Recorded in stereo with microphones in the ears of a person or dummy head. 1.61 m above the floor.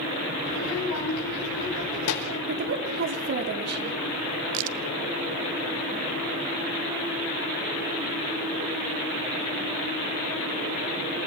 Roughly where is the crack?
Right.